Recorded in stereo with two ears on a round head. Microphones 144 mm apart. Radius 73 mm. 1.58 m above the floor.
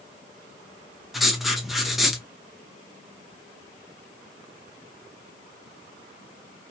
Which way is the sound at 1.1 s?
Centre (ahead or behind).